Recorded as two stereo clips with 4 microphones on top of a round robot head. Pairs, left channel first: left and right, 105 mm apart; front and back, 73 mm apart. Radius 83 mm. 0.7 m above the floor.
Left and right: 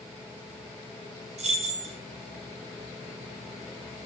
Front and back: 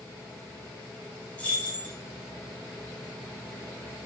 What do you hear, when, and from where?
1.4 s keys jangling: 75° right, 1.3 m